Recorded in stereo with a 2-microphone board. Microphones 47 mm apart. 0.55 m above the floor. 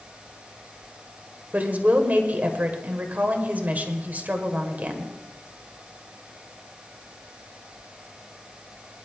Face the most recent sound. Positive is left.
turn(degrees=-40)  # may be behind; listen again after turning